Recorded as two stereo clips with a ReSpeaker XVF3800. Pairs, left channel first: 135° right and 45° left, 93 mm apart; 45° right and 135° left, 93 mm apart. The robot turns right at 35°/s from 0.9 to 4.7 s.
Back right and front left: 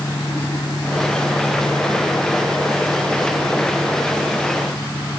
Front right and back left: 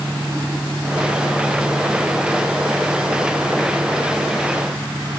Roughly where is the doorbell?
I don't hear a doorbell.